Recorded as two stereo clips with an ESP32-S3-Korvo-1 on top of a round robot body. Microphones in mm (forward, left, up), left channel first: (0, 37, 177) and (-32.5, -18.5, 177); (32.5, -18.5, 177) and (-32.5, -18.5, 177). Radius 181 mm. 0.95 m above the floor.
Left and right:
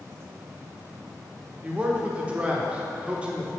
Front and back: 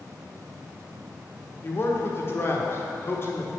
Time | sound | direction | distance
1.6 | a man speaking | 50° right | 1.3 m